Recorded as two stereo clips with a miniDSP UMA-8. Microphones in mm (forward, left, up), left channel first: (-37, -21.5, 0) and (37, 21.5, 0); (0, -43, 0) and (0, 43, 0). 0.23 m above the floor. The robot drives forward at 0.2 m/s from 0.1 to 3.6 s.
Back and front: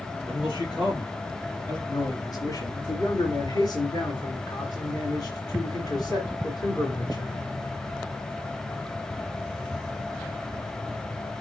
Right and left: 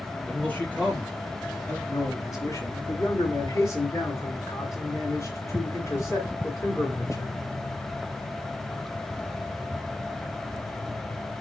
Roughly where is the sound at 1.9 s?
Behind right.